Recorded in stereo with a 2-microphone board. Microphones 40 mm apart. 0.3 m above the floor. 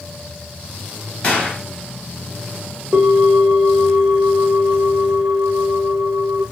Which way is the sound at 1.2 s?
25° left (ahead or behind).